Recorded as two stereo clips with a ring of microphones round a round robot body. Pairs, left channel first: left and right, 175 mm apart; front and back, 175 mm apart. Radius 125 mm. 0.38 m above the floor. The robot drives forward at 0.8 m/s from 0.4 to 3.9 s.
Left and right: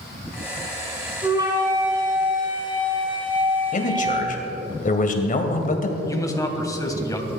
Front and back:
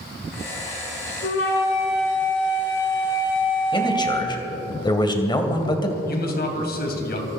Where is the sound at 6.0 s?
20° left, 3 m.